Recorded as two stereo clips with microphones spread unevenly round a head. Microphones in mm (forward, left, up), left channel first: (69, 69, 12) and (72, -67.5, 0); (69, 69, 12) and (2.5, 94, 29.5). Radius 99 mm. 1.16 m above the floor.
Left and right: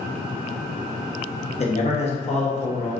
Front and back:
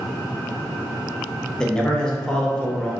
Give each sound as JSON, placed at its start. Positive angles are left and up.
{"t": 1.6, "sound": "a man speaking", "azimuth_deg": 55, "distance_m": 1.0}